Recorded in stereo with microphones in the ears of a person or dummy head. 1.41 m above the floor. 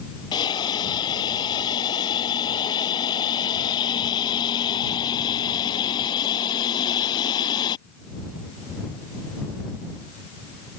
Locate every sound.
0.3 s a hiss: 25° left (ahead or behind)